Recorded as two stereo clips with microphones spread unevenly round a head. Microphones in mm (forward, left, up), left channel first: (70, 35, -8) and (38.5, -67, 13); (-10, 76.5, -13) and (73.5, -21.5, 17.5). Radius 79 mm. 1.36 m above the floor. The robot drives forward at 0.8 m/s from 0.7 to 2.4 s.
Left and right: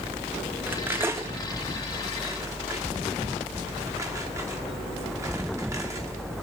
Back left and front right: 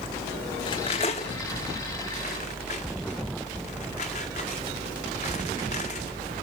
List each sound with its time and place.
0.7 s cutlery clinking: 165° right, 0.7 m; by 6.2 s 175° right, 1.9 m